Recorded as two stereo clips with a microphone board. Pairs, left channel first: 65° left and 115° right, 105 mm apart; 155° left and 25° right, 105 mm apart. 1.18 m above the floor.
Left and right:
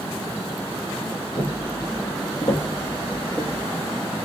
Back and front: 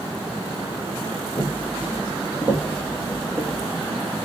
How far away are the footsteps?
About 1.6 m.